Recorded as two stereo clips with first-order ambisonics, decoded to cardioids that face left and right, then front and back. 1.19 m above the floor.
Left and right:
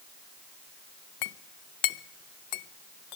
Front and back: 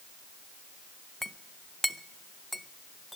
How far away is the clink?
About 0.5 m.